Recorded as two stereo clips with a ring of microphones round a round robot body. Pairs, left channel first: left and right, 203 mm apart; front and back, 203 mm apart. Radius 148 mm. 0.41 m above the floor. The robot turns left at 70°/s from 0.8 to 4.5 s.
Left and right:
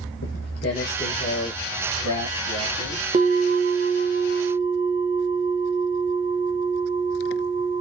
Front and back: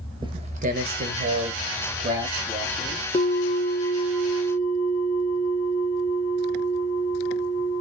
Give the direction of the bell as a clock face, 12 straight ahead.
2 o'clock.